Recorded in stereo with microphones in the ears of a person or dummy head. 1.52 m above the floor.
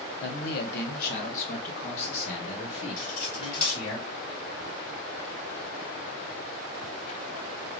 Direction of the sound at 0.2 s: 65° left (ahead or behind).